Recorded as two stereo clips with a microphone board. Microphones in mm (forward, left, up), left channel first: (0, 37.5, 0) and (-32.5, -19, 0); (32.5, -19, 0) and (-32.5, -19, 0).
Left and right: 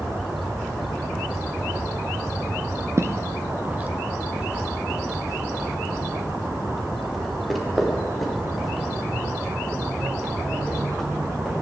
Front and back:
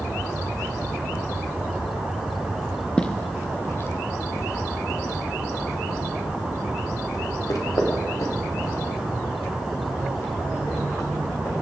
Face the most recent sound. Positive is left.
turn(degrees=-25)